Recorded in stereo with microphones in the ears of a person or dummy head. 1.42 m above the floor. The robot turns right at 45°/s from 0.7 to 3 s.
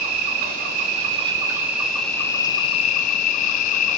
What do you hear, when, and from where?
0.0 s an insect: 60° right, 0.7 m; by 4.0 s 45° left, 0.7 m